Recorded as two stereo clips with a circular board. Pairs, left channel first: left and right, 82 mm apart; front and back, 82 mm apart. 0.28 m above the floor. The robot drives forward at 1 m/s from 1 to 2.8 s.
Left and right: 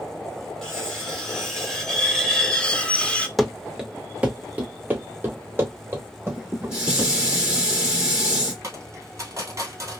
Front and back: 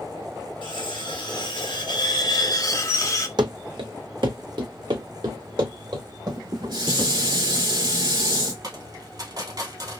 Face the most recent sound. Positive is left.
turn(degrees=-145)